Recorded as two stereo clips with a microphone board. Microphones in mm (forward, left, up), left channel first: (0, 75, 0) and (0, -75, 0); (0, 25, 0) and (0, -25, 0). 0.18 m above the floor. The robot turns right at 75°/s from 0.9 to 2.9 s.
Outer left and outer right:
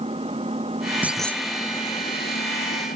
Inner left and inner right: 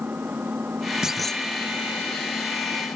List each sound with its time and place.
0.0 s an engine running: 40° right; by 3.0 s 110° left
1.0 s a clunk: 10° right; by 1.4 s 20° left